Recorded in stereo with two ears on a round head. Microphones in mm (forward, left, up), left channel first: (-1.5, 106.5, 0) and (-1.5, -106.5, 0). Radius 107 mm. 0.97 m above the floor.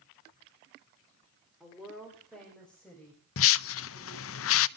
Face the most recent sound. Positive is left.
turn(degrees=60)  # may be behind; listen again after turning